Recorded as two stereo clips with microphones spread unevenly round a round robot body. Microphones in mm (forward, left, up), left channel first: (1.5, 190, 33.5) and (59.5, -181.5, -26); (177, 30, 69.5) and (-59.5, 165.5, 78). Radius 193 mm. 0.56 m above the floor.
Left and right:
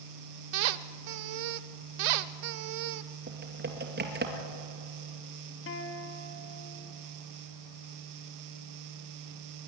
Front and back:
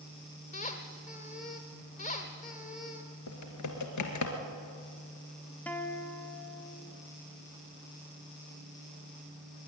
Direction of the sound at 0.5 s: 100° right.